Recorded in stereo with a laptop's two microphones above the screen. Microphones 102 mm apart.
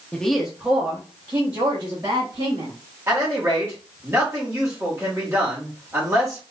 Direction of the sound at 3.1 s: 25° right (ahead or behind).